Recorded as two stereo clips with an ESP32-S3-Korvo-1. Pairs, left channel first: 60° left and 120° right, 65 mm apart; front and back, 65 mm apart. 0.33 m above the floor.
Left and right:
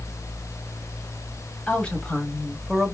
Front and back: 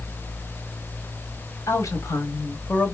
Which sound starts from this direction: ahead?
A woman speaking, at 1.7 s.